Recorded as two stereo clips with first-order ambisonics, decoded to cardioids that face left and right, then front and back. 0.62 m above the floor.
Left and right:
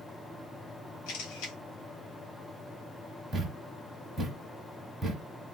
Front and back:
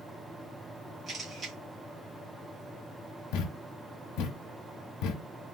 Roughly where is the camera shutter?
Left.